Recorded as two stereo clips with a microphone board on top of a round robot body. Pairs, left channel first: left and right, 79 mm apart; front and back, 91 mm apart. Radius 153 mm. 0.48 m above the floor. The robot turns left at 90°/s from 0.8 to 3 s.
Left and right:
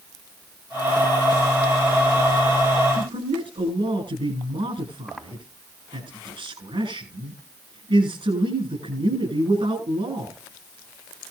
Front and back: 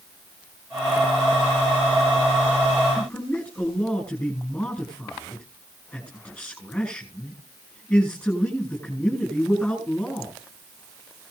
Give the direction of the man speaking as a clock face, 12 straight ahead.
2 o'clock.